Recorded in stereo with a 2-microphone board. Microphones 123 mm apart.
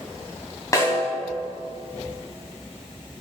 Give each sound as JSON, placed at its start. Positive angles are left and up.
{"t": 0.7, "sound": "a snare drum", "side_deg": 25, "distance_m": 3.0}